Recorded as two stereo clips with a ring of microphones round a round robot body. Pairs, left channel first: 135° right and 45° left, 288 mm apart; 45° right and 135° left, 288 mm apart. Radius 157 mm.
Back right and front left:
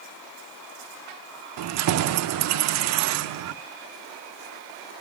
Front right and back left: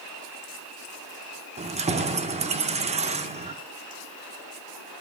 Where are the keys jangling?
70° left, 0.6 m.